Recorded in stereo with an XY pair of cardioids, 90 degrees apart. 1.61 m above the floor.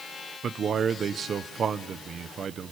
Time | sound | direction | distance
0.4 | a man speaking | 55° right | 0.9 m